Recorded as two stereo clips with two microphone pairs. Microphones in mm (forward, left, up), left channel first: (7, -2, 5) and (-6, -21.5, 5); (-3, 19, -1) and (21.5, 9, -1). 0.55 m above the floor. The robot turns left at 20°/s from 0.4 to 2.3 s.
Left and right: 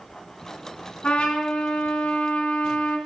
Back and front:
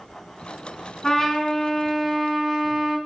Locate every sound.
1.0 s a trumpet: 90° left, 3 m; by 3.0 s 65° left, 3 m